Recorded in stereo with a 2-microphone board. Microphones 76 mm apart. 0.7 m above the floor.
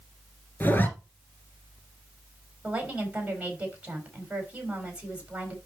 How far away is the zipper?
About 1.7 m.